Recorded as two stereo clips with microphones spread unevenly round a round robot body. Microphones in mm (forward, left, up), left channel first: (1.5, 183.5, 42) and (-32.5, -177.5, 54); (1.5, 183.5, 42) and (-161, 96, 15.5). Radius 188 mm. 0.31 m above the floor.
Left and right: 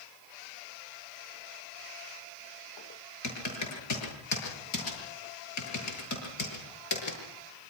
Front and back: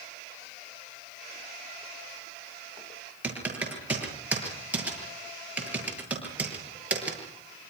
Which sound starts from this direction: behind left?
Typing on a keyboard, at 3.2 s.